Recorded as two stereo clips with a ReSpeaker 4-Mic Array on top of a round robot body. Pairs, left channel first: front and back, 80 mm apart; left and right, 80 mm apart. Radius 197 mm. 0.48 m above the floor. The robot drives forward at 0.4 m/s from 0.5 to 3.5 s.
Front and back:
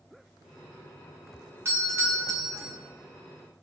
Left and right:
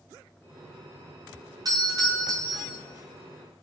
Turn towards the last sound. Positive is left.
turn(degrees=-135)